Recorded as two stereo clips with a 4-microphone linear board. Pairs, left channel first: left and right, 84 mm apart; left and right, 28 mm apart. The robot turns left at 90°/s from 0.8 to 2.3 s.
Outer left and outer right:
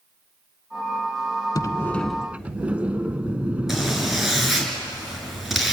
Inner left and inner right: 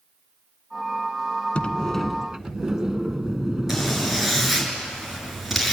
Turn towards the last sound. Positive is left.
turn(degrees=-5)  # may be behind; listen again after turning